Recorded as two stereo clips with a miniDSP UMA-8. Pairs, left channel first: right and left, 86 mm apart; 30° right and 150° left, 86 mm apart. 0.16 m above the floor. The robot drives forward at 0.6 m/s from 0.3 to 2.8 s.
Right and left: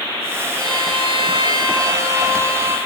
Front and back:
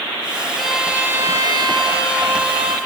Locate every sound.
0.6 s a violin: 55° left, 0.6 m; by 2.8 s 155° left, 1.1 m